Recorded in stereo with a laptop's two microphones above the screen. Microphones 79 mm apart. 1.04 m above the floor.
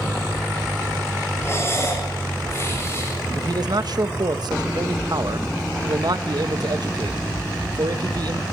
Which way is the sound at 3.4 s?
60° right (ahead or behind).